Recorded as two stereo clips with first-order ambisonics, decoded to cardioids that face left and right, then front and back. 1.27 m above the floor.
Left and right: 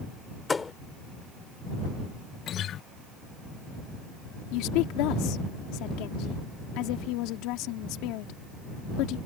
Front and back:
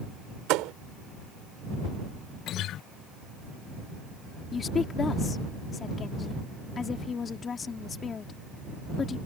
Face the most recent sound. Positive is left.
turn(degrees=70)